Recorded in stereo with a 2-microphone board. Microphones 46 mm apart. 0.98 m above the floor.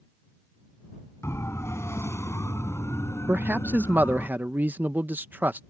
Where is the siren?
80° left; by 4.3 s 85° left.